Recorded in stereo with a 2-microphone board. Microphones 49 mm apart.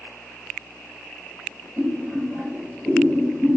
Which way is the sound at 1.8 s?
5° right (ahead or behind).